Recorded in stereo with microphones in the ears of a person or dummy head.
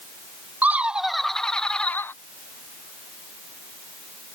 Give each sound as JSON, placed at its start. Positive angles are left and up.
{"t": 0.6, "sound": "laughter", "side_deg": -5}